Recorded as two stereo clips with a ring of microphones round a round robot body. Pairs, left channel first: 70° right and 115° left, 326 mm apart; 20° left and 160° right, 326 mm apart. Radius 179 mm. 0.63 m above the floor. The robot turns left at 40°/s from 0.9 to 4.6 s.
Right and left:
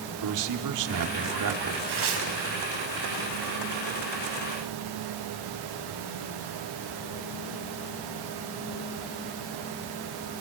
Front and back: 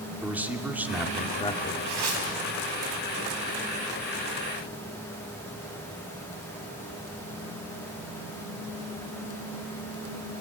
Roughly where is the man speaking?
Behind left.